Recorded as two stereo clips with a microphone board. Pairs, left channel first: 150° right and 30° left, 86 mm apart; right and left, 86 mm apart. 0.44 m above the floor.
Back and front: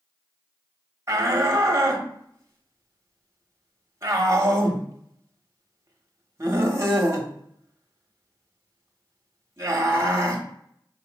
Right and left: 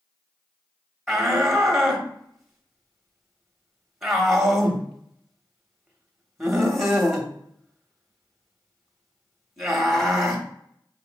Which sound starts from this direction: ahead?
A shout, at 1.1 s.